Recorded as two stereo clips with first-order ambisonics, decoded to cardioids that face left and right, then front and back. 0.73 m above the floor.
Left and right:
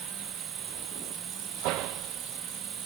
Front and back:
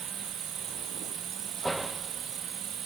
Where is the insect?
130° right.